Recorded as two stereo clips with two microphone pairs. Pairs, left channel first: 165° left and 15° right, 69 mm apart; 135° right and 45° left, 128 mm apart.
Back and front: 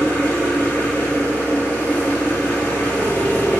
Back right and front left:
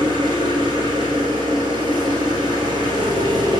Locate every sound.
0.0 s an engine running: 95° left, 1.4 m